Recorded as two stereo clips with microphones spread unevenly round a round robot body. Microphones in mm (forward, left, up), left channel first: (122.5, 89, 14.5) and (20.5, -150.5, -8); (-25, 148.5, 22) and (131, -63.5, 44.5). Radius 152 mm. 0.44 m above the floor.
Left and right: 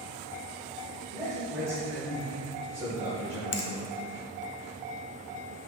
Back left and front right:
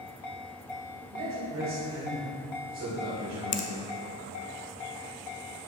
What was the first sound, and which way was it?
A man speaking, 35° right.